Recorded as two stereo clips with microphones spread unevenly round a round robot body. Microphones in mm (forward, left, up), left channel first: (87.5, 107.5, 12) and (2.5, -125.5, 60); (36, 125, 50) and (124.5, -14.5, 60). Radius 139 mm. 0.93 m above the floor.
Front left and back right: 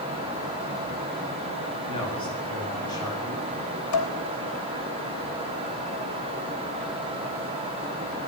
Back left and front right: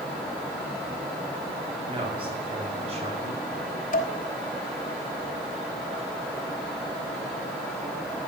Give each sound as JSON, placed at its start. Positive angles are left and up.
{"t": 1.9, "sound": "a man speaking", "azimuth_deg": 0, "distance_m": 7.5}
{"t": 3.9, "sound": "dishes clattering", "azimuth_deg": 85, "distance_m": 2.5}